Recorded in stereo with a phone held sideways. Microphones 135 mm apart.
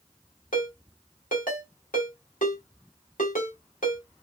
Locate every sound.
0.5 s a ringtone: 70° left (ahead or behind), 1.8 m